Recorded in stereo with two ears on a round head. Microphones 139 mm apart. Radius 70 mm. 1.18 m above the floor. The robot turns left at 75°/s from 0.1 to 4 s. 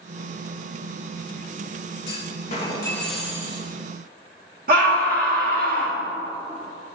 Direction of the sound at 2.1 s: 80° left.